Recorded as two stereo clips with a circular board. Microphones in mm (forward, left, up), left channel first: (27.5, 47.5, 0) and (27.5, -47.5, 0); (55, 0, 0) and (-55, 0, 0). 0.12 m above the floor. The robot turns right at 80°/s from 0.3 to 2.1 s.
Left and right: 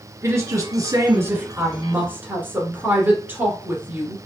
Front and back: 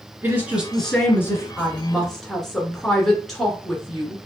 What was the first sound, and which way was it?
A woman speaking, 125° right.